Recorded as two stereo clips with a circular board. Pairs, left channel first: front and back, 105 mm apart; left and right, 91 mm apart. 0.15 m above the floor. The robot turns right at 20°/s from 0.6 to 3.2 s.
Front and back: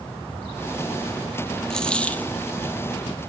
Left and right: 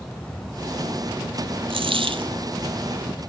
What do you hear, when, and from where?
1.7 s a dropped coin: 85° right, 0.9 m; by 2.3 s 70° right, 0.9 m